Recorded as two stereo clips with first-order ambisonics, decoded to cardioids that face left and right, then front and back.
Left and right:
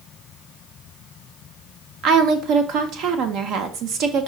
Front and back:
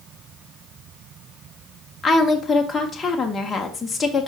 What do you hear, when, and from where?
2.0 s a woman speaking: 70° right, 0.8 m